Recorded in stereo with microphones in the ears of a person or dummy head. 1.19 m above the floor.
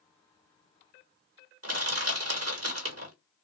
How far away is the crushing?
About 1.4 m.